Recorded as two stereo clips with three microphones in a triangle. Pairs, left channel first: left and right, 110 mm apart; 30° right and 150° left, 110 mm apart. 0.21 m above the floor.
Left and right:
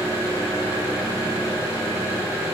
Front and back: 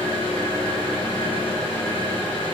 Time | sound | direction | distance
0.0 | an engine running | 35° right | 1.7 m